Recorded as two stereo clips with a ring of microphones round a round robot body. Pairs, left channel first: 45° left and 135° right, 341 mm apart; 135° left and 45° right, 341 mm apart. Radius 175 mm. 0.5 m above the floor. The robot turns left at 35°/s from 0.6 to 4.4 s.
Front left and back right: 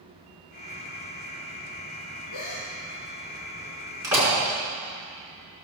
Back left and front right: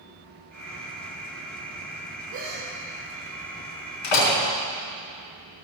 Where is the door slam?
145° left, 5 m; by 4.3 s 135° left, 5 m.